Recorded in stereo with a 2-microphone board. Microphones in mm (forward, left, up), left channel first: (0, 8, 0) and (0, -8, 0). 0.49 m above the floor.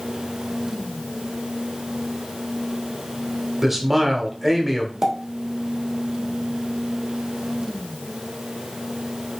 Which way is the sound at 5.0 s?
40° right (ahead or behind).